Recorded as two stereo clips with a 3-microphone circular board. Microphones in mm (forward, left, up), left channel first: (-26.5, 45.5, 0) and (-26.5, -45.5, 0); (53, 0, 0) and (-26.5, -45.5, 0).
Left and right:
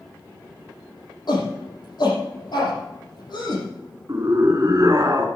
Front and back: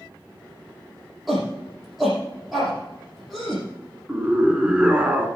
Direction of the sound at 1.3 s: 120° left.